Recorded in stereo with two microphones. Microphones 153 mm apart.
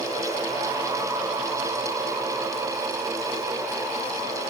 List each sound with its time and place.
Only background noise.